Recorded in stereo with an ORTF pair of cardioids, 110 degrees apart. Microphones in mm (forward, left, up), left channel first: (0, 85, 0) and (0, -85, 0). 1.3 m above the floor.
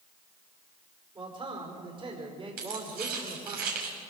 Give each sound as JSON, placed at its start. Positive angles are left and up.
{"t": 1.1, "sound": "a man speaking", "azimuth_deg": -30, "distance_m": 5.0}
{"t": 2.6, "sound": "keys jangling", "azimuth_deg": -65, "distance_m": 6.5}